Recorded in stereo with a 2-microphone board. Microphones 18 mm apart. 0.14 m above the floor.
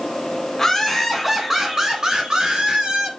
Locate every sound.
0.6 s laughter: 15° left (ahead or behind), 1.4 m; by 3.1 s 50° right (ahead or behind), 2.5 m